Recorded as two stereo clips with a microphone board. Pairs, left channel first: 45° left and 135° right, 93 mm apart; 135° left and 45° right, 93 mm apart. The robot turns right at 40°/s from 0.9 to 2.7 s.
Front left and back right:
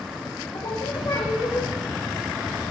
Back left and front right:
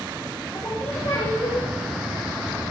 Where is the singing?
75° left, 4 m; by 1.7 s 110° left, 4 m.